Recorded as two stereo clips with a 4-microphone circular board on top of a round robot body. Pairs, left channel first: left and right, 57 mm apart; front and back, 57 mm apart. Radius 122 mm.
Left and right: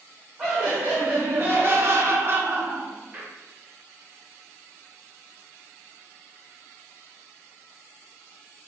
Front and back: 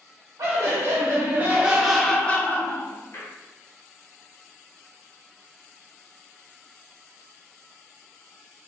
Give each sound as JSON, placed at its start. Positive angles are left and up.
{"t": 0.4, "sound": "laughter", "azimuth_deg": -160, "distance_m": 1.0}